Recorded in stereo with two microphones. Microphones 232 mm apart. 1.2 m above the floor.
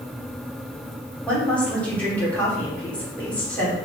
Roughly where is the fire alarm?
I don't hear a fire alarm.